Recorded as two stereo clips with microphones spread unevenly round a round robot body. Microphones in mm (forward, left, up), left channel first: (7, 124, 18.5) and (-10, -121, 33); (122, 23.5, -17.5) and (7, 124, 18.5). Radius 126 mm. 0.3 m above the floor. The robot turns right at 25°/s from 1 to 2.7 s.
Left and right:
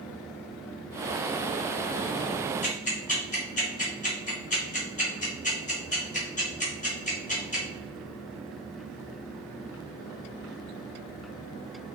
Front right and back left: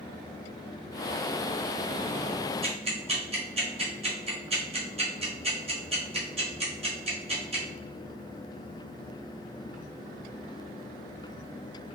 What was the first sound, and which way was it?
Ticking, 100° left.